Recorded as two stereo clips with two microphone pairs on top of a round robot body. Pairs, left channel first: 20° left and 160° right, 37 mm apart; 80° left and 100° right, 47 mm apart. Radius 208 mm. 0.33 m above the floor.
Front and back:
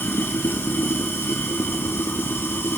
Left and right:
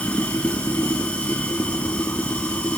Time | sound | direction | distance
0.0 | running water | 20° left | 3 m